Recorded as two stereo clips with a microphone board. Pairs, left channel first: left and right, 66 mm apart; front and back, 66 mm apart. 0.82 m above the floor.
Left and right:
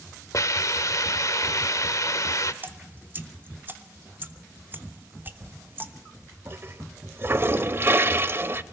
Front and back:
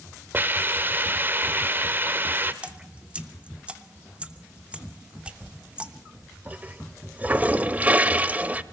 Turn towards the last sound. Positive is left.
turn(degrees=-125)